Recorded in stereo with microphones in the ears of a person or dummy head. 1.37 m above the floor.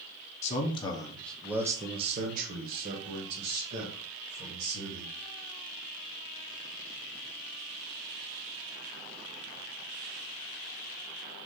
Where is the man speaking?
35° left (ahead or behind), 0.9 m; by 5.2 s 80° right, 2 m.